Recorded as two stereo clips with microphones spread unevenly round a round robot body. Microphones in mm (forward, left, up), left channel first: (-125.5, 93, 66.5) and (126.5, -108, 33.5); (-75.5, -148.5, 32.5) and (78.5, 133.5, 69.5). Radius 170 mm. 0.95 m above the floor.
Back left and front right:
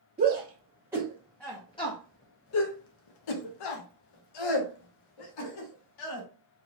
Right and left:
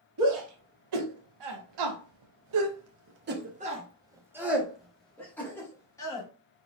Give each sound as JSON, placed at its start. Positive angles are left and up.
{"t": 0.2, "sound": "a shout", "azimuth_deg": 35, "distance_m": 1.4}